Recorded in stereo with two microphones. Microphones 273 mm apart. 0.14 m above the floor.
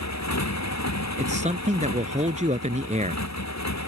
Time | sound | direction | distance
0.0 | a motorcycle | 80° left | ?
1.2 | a man speaking | 25° right (ahead or behind) | ?